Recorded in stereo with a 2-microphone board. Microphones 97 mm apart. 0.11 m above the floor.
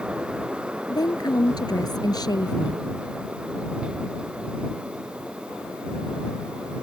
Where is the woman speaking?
45° left (ahead or behind).